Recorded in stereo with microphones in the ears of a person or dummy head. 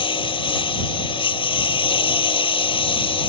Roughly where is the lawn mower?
Left.